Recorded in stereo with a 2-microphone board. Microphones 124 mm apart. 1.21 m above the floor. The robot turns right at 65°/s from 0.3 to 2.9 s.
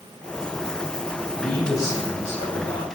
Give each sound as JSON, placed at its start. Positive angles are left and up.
{"t": 1.4, "sound": "a man speaking", "azimuth_deg": 0, "distance_m": 3.0}